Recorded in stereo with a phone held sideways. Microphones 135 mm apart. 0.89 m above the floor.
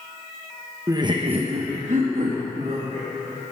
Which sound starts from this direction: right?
Laughter, at 0.9 s.